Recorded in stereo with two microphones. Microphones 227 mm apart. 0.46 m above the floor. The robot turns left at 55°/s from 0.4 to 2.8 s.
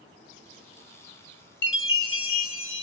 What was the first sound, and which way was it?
A chime, 125° left.